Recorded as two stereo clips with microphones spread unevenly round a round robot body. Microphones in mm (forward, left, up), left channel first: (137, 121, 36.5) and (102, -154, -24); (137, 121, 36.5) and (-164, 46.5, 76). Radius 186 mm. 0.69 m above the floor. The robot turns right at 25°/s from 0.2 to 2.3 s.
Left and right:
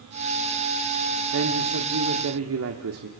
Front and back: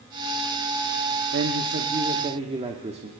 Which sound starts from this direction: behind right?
A man speaking, at 1.3 s.